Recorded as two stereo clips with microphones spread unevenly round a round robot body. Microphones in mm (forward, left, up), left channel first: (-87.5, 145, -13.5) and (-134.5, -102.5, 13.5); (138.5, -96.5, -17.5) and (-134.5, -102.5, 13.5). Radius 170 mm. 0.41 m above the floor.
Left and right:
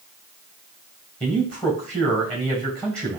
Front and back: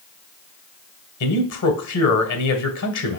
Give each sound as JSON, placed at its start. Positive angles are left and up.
{"t": 1.2, "sound": "a man speaking", "azimuth_deg": -5, "distance_m": 1.8}